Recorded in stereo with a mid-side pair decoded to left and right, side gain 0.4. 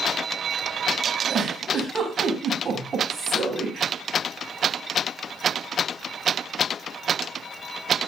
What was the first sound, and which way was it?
A giggle, 45° right.